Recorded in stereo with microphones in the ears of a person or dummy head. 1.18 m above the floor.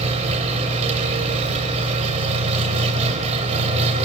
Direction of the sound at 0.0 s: 35° right (ahead or behind).